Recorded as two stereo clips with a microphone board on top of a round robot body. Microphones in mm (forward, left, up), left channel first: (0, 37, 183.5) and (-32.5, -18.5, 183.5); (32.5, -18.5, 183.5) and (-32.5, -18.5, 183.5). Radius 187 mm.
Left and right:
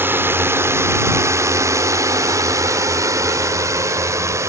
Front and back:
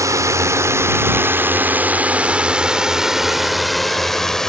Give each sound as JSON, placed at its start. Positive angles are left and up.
{"t": 0.0, "sound": "a drone", "azimuth_deg": -165}